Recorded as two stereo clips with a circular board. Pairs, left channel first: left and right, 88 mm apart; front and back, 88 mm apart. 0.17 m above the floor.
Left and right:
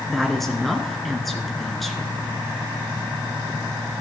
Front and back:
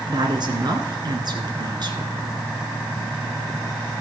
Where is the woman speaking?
Straight behind, 2 m.